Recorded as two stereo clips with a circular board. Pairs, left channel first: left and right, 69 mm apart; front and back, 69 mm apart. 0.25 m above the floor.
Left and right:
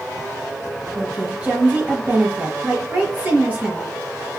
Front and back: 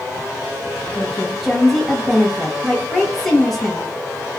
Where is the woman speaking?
80° right, 1.1 m.